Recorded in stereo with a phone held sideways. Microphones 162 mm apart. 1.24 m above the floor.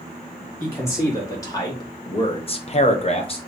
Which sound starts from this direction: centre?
A man speaking, at 0.6 s.